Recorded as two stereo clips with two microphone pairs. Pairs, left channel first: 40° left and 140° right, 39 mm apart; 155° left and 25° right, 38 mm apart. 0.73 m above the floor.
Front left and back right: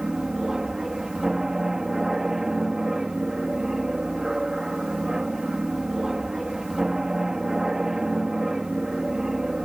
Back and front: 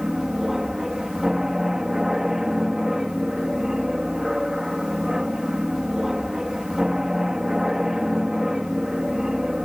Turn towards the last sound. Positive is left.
turn(degrees=-80)